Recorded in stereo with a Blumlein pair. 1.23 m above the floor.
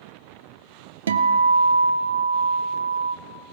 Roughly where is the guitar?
Ahead right.